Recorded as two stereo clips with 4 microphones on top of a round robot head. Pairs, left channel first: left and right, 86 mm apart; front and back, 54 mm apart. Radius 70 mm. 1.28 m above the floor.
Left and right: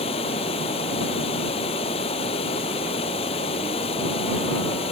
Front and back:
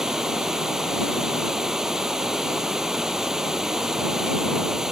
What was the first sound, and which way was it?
Running water, 100° left.